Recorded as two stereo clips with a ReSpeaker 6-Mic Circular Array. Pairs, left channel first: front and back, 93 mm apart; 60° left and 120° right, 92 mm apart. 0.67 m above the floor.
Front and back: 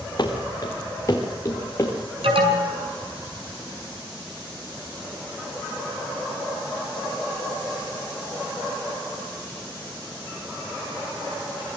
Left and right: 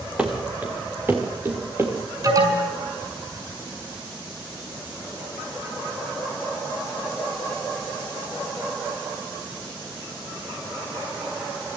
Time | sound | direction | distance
0.2 | running footsteps | 45° right | 3.5 m
2.2 | an alarm | 170° right | 5.5 m